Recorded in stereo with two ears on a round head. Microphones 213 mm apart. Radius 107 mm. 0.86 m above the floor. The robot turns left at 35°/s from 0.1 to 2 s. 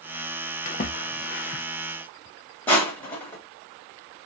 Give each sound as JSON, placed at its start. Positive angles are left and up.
{"t": 0.7, "sound": "a splash", "side_deg": 35, "distance_m": 0.8}
{"t": 2.7, "sound": "crushing", "side_deg": 5, "distance_m": 1.3}